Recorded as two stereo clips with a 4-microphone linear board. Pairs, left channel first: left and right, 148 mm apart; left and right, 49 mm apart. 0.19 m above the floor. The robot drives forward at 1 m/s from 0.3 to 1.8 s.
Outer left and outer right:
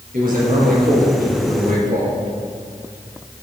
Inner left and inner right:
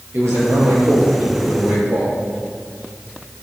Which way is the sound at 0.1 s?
70° right (ahead or behind).